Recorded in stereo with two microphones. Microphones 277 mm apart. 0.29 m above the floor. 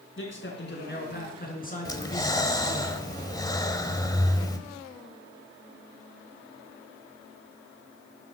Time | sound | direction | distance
0.2 | a man speaking | 45° left (ahead or behind) | 3 m
1.9 | breathing | 15° left (ahead or behind) | 1.1 m